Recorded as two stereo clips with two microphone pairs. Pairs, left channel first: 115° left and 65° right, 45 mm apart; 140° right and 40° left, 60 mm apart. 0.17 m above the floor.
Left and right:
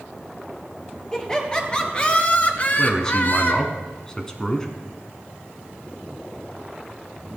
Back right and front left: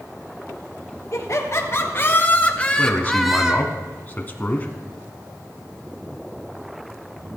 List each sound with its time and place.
1.1 s laughter: 170° right, 3 m; by 3.7 s 100° left, 1.6 m
2.8 s a man speaking: straight behind, 1.2 m